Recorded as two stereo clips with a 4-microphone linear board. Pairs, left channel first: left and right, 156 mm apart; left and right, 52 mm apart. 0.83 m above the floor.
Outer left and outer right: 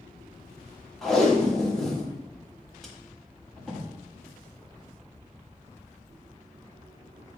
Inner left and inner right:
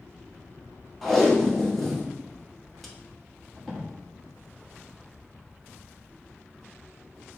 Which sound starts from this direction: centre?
Tape being pulled, at 1.0 s.